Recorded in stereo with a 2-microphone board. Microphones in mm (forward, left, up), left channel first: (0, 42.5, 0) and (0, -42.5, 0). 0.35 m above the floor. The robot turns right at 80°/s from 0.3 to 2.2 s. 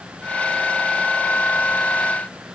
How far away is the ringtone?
No ringtone in this recording.